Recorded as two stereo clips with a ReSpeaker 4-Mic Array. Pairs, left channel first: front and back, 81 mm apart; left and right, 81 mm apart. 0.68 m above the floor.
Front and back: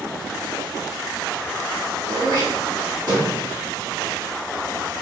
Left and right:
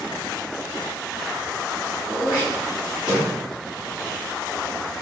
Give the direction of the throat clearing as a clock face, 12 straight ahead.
6 o'clock.